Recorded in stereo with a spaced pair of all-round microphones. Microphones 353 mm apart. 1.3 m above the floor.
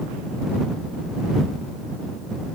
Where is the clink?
I don't hear a clink.